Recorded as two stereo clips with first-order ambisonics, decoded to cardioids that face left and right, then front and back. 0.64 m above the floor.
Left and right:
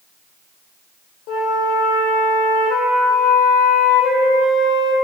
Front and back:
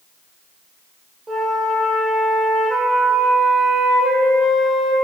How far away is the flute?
About 1.5 m.